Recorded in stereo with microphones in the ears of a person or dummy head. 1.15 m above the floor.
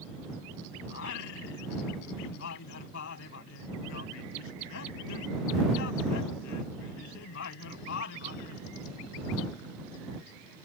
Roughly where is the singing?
Left.